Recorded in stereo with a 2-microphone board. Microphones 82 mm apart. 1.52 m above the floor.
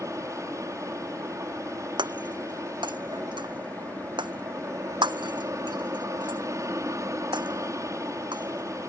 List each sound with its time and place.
0.0 s an aircraft: 40° right (ahead or behind)
2.0 s breaking glass: 70° right (ahead or behind)